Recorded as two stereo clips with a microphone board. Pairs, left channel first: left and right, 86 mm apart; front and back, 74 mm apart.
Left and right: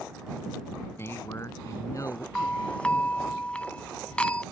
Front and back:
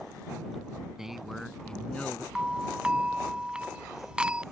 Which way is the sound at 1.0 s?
105° left.